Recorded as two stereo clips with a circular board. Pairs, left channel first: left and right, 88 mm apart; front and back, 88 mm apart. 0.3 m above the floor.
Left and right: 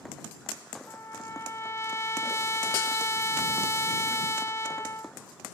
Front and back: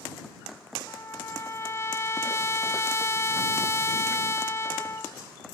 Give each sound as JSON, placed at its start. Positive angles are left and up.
{"t": 0.9, "sound": "a trumpet", "azimuth_deg": 45}